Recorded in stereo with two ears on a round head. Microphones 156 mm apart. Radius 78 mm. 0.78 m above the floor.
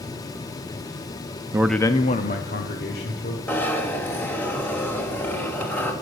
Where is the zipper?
10° left (ahead or behind), 1.5 m.